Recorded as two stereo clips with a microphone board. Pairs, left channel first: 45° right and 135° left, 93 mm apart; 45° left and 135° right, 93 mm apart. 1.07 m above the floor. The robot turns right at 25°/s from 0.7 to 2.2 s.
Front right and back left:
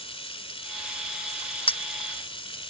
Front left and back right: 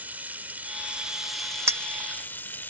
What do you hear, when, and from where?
0.0 s running water: 60° right; by 2.7 s 25° right
1.7 s a clink: 75° right; by 1.8 s 70° right